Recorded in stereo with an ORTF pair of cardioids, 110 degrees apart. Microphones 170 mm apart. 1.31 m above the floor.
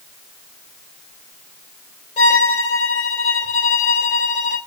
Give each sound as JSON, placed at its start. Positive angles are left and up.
{"t": 2.2, "sound": "a violin", "azimuth_deg": 45, "distance_m": 3.0}